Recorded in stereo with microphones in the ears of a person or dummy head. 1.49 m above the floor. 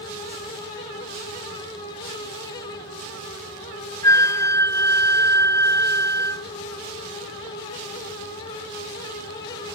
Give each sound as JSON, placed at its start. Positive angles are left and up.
{"t": 4.0, "sound": "a flute", "side_deg": 15}